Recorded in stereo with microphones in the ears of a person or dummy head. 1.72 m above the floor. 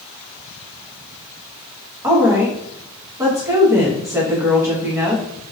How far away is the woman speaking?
About 1.1 m.